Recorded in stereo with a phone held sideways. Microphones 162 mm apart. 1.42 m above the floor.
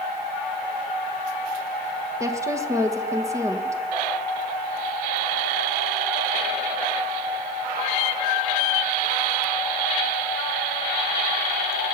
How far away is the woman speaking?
About 1.3 m.